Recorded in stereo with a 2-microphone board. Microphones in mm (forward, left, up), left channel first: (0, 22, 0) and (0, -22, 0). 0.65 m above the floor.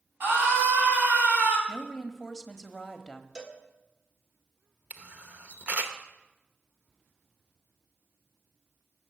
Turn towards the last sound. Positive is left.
turn(degrees=-35)  # may be behind; listen again after turning